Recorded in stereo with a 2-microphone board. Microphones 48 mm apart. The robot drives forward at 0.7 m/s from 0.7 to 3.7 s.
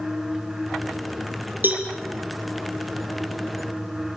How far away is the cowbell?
About 4.5 m.